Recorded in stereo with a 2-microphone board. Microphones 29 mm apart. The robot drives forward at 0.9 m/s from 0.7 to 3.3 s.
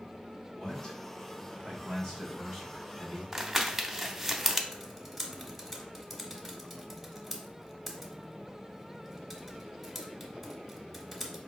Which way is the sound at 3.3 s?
10° right (ahead or behind).